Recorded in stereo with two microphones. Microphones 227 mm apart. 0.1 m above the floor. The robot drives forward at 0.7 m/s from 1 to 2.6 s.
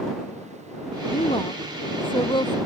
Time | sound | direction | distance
1.1 | a woman speaking | 25° left (ahead or behind) | ?